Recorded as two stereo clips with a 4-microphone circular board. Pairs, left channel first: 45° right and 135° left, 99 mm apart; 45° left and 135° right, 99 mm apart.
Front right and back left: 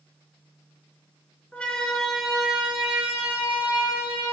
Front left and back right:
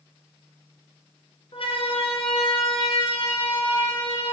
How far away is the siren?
About 2.5 m.